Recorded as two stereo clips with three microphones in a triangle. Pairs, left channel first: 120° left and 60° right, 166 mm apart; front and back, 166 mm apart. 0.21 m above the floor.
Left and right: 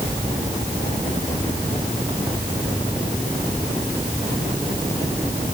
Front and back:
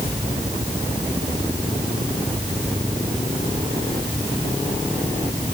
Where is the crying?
I don't hear crying.